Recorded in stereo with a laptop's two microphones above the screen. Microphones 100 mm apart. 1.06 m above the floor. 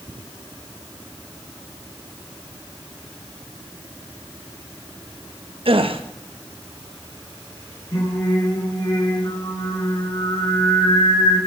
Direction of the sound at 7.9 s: 40° left (ahead or behind).